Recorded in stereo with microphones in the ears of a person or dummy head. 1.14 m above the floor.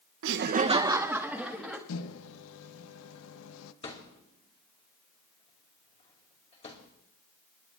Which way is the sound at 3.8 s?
30° left (ahead or behind).